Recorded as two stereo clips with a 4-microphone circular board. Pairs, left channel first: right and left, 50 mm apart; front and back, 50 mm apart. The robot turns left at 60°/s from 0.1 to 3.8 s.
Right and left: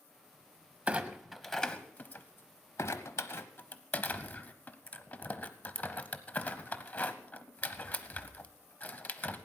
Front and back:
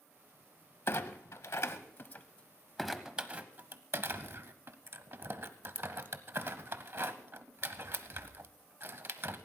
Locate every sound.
0.9 s a clunk: 30° left, 0.9 m; by 9.5 s 145° right, 0.9 m